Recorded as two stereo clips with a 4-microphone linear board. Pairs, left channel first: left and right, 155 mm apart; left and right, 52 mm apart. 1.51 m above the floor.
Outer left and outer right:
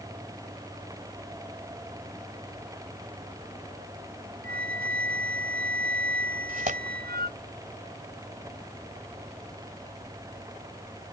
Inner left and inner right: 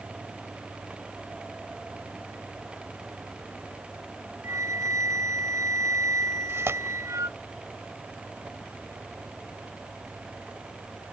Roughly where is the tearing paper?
Right.